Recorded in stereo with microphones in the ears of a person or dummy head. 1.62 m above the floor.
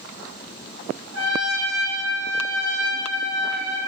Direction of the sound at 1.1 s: 80° right.